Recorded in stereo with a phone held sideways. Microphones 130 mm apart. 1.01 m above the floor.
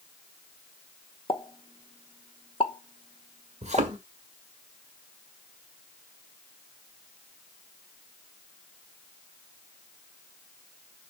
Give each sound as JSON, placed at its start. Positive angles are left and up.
{"t": 1.3, "sound": "a pop", "side_deg": 40, "distance_m": 0.9}
{"t": 3.6, "sound": "a thud", "side_deg": -55, "distance_m": 1.5}